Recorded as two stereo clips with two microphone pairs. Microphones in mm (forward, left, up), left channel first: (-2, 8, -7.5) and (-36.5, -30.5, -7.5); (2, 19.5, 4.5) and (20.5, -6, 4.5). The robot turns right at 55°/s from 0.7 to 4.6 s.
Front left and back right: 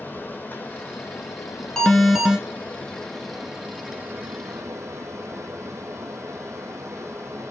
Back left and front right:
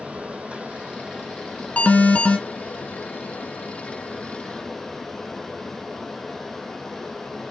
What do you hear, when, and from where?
0.0 s running water: 5° right, 2.5 m; by 7.5 s 150° right, 2.5 m
1.8 s an alarm: 125° left, 1.7 m; by 2.4 s 160° left, 1.7 m